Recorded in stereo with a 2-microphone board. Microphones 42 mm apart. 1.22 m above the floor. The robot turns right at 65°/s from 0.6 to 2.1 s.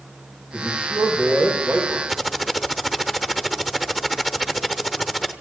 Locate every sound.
0.5 s a man speaking: 170° right, 4.5 m; by 2.0 s 80° right, 4.5 m
2.1 s typing on a keyboard: 5° right (ahead or behind), 0.9 m